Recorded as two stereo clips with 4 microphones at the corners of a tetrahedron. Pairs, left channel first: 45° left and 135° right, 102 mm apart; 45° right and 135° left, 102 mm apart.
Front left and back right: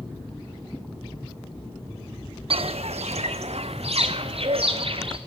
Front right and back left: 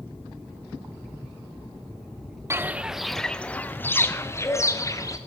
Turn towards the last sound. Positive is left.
turn(degrees=-105)